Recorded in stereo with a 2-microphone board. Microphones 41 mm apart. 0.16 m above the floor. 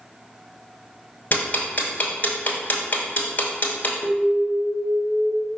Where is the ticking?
45° left (ahead or behind), 1.0 m.